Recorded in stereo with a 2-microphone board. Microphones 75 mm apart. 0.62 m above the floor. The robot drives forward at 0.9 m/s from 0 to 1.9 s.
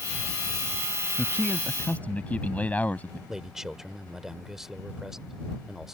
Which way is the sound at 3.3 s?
5° right (ahead or behind).